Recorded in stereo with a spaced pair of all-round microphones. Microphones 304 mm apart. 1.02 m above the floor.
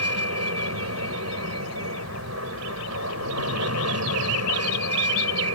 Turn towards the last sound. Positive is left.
turn(degrees=-60)  # may be behind; listen again after turning